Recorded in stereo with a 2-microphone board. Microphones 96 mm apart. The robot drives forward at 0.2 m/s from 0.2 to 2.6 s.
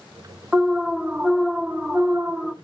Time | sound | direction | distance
0.5 | an alarm | 10° right (ahead or behind) | 0.7 m